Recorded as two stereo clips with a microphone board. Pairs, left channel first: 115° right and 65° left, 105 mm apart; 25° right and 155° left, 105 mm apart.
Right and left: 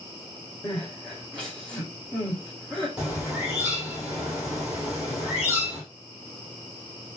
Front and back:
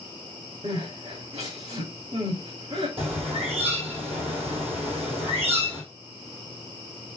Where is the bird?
145° left, 2.5 m.